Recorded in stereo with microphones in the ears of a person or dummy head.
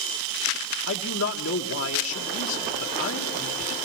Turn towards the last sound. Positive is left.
turn(degrees=75)  # may be behind; listen again after turning